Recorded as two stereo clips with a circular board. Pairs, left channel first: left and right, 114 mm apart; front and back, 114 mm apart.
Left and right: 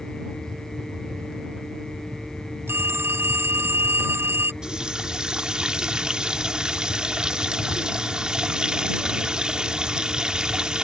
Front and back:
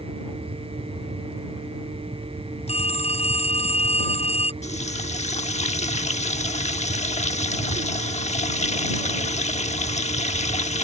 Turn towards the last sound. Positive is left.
turn(degrees=-5)